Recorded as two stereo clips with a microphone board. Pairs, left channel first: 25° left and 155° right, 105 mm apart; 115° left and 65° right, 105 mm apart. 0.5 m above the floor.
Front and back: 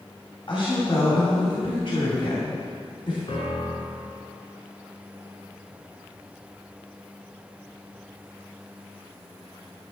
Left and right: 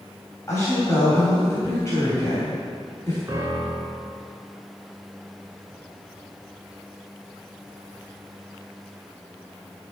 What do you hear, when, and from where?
0.5 s a woman speaking: 50° left, 3 m
3.3 s a piano: 5° right, 2 m